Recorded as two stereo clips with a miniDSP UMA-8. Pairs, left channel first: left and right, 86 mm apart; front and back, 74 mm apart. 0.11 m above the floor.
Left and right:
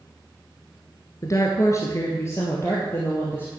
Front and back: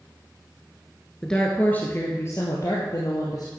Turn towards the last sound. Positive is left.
turn(degrees=30)